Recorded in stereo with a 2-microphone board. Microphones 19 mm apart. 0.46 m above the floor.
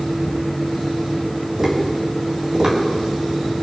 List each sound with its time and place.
1.6 s tapping: 40° right (ahead or behind), 3.5 m